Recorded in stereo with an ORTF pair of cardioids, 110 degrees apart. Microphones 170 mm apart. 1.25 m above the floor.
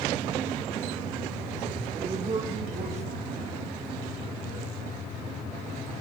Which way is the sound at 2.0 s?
30° right.